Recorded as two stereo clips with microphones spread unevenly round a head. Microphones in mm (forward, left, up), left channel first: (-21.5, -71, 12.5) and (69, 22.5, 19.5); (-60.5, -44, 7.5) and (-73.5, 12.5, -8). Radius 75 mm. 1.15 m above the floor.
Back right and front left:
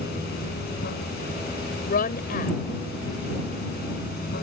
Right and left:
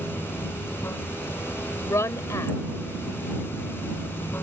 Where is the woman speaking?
115° right.